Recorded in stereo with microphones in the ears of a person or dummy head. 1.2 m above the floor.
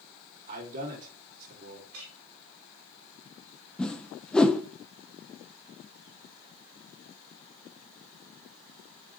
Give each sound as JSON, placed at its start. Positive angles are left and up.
{"t": 0.5, "sound": "a man speaking", "side_deg": -45, "distance_m": 2.5}
{"t": 1.9, "sound": "a clink", "side_deg": -75, "distance_m": 2.5}
{"t": 3.8, "sound": "a whoosh", "side_deg": 5, "distance_m": 0.5}